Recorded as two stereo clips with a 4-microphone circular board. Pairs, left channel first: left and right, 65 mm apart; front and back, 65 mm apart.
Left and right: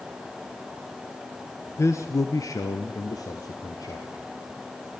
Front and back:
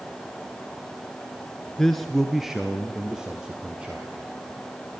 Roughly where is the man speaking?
Left.